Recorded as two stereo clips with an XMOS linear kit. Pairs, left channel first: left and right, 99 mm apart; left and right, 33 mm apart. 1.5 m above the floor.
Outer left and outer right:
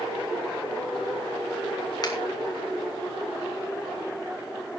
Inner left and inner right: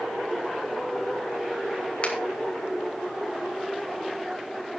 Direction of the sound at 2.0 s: 45° left (ahead or behind).